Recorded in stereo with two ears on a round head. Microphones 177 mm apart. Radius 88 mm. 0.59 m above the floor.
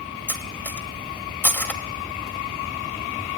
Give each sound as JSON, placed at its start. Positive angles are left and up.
{"t": 0.3, "sound": "cutlery clinking", "side_deg": 10, "distance_m": 1.4}